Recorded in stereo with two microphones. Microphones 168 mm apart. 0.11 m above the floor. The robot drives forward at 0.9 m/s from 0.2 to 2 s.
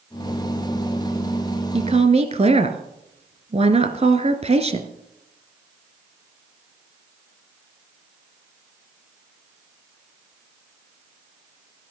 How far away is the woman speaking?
About 1.5 m.